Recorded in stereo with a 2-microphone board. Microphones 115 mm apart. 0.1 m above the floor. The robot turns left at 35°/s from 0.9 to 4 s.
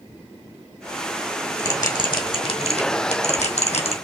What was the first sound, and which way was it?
A bell, 20° left (ahead or behind).